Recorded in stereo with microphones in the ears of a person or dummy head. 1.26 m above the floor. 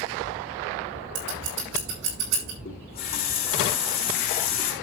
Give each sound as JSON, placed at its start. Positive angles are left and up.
{"t": 1.1, "sound": "scissors", "side_deg": -85, "distance_m": 5.5}
{"t": 2.6, "sound": "a running tap", "side_deg": 40, "distance_m": 3.5}